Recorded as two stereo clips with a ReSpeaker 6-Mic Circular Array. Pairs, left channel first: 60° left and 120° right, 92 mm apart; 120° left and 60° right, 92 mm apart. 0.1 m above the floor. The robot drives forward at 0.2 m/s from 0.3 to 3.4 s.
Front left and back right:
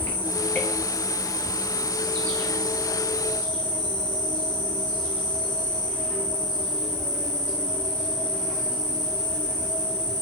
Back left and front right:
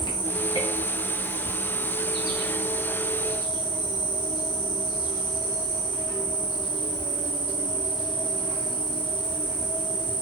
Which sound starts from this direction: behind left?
An insect, at 0.0 s.